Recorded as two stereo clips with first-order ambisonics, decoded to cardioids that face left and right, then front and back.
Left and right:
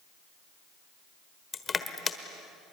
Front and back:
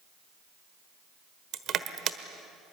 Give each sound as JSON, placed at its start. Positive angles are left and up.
{"t": 1.5, "sound": "crushing", "azimuth_deg": 155, "distance_m": 1.2}